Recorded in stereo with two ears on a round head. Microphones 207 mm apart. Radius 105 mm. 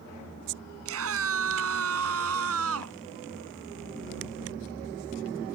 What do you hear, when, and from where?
0.8 s a scream: 70° right (ahead or behind); by 3.0 s 75° right (ahead or behind)